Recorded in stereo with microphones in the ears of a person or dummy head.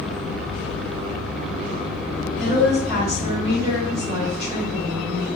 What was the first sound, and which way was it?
A woman speaking, 5° right (ahead or behind).